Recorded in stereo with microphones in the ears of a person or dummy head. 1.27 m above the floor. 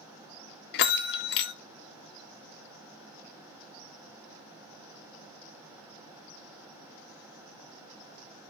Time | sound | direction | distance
0.7 | a bell | 65° left (ahead or behind) | 0.7 m